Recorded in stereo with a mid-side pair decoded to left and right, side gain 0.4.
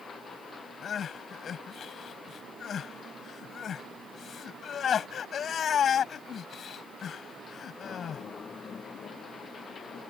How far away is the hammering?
I don't hear hammering.